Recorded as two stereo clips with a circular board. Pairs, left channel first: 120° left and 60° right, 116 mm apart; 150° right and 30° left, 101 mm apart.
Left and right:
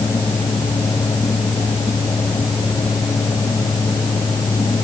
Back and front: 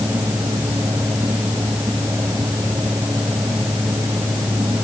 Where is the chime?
No chime in this recording.